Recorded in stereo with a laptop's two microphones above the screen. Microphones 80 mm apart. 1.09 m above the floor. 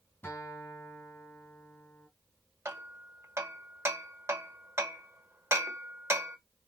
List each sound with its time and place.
0.2 s a guitar: 25° left (ahead or behind), 2.5 m
2.6 s hammering: 35° right (ahead or behind), 1.3 m